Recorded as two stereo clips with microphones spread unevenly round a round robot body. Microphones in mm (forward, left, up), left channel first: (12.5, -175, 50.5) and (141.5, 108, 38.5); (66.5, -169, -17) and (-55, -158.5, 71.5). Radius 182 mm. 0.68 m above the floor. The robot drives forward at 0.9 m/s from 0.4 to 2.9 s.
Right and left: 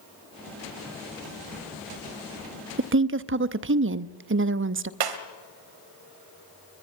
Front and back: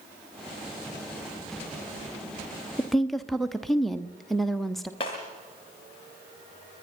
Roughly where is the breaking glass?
Ahead left.